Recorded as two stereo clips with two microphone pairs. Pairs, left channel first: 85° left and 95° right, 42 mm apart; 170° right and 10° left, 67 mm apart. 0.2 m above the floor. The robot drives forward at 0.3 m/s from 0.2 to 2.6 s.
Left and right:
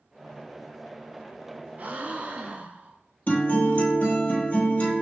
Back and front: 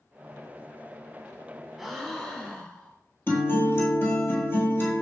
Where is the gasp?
80° right, 0.7 m; by 3.0 s 110° right, 0.7 m.